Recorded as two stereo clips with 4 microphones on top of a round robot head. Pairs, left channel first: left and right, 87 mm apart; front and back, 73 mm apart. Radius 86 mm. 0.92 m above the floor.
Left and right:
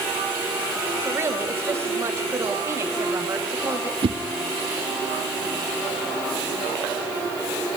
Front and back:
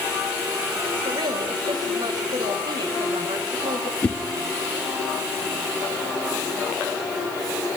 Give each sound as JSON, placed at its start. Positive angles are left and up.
{"t": 1.1, "sound": "a woman speaking", "azimuth_deg": -150, "distance_m": 5.0}
{"t": 4.0, "sound": "a whoosh", "azimuth_deg": -75, "distance_m": 1.4}